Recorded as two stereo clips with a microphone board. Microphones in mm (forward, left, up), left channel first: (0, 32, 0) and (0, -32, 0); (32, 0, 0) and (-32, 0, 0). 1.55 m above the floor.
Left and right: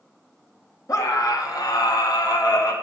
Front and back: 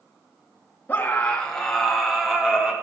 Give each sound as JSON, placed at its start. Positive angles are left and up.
{"t": 0.9, "sound": "a scream", "azimuth_deg": 60, "distance_m": 2.5}